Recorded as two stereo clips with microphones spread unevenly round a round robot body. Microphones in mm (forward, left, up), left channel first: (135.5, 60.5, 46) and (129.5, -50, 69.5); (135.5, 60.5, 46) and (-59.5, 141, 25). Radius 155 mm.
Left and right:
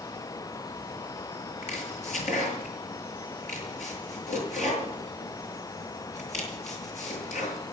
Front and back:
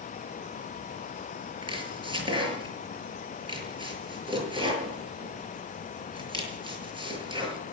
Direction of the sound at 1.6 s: 90° left.